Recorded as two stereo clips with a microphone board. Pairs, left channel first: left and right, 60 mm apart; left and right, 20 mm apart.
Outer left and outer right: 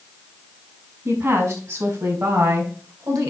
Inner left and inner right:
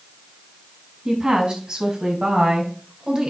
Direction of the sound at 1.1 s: 50° right (ahead or behind).